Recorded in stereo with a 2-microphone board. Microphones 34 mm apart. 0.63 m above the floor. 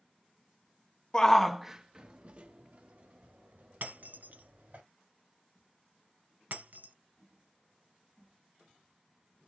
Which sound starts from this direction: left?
A shout, at 1.1 s.